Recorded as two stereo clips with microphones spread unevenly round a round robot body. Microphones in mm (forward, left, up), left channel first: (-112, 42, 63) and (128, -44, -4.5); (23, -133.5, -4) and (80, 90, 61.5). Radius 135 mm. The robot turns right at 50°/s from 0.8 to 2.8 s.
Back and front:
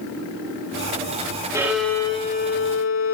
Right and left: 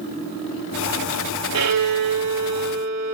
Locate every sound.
1.5 s a violin: 60° left, 3 m; by 3.1 s 120° left, 3 m